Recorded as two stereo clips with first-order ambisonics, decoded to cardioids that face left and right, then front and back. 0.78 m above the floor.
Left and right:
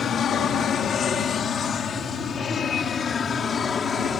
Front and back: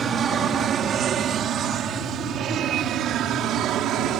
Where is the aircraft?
135° left; by 4.2 s 150° left.